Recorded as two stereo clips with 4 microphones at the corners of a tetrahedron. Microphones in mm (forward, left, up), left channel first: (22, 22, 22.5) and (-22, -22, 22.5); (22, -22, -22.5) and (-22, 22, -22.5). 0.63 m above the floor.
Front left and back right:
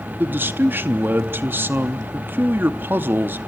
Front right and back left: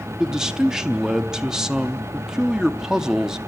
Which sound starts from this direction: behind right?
A man speaking, at 0.2 s.